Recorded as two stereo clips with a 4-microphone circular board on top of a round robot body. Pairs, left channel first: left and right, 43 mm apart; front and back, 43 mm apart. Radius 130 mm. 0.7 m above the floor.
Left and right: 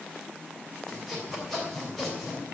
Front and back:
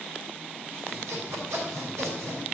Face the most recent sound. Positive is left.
turn(degrees=175)